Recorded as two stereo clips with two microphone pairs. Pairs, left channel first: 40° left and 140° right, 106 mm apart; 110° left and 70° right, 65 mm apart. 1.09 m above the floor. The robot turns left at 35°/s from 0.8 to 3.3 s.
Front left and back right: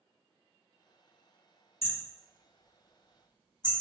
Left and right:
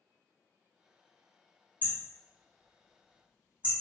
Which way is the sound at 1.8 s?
45° left.